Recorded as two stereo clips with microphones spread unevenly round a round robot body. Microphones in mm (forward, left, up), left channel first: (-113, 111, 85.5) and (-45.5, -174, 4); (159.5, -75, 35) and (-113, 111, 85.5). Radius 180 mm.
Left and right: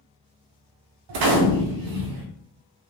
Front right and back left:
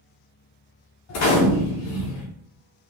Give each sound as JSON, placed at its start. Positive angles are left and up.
{"t": 1.1, "sound": "a gunshot", "azimuth_deg": -80, "distance_m": 0.5}